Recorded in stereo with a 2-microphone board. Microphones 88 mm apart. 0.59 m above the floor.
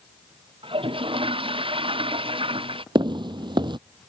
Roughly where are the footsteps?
Right.